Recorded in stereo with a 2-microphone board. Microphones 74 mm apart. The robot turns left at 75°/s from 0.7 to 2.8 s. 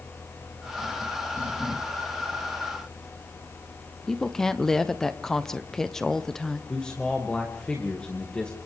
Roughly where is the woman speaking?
Centre.